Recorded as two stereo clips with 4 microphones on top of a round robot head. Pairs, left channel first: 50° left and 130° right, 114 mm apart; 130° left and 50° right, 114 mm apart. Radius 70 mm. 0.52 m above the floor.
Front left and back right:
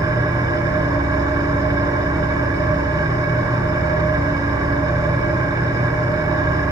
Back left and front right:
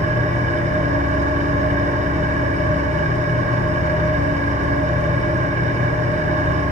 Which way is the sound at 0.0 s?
75° right.